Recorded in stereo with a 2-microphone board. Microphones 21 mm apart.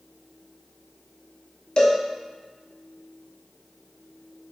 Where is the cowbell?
40° left (ahead or behind), 0.7 m.